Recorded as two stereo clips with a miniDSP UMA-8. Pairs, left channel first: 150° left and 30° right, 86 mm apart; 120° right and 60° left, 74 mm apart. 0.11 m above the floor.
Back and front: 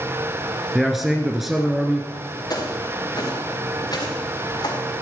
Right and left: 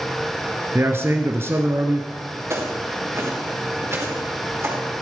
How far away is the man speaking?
About 1.3 m.